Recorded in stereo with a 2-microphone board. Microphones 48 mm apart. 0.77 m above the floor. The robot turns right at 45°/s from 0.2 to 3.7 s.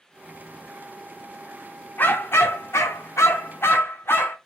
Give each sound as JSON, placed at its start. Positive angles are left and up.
{"t": 2.0, "sound": "a dog barking", "azimuth_deg": 45, "distance_m": 0.6}